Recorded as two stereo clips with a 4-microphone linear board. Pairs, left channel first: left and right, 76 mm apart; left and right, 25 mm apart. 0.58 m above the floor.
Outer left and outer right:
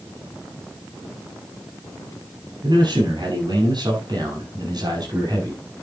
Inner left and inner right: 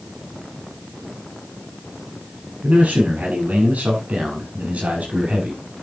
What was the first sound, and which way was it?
A man speaking, 75° right (ahead or behind).